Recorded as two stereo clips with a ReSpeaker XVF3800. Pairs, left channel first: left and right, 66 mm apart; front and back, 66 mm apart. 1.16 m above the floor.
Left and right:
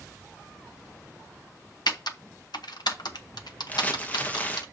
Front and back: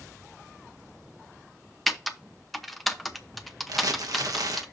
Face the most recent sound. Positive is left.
turn(degrees=155)